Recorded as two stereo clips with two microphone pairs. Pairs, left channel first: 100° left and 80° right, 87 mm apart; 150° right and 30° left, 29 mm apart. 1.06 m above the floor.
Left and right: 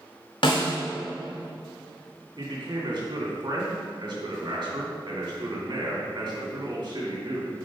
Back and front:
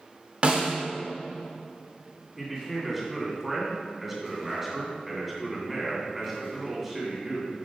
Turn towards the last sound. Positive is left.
turn(degrees=-50)